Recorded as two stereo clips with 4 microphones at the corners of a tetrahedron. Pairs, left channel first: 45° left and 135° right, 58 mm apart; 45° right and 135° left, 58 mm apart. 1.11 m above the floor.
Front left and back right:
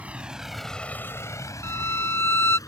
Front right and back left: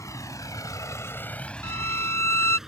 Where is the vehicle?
70° right; by 2.7 s 55° left.